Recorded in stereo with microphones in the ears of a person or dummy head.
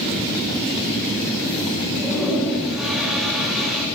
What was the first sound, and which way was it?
A toilet flushing, 5° right (ahead or behind).